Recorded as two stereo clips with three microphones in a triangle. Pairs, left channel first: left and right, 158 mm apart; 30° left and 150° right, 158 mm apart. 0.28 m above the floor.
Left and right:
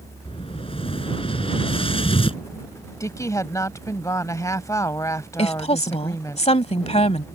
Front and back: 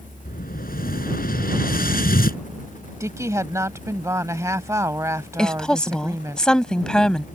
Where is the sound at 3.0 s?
150° left.